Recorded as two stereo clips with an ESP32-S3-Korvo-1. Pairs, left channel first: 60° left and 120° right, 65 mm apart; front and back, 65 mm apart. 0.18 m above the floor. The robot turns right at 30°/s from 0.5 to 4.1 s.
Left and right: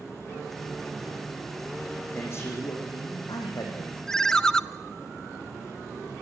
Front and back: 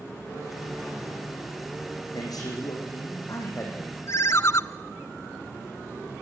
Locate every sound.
2.1 s a man speaking: 10° left, 7.5 m; by 4.0 s 60° left, 7.5 m
4.1 s a ringtone: 20° right, 0.5 m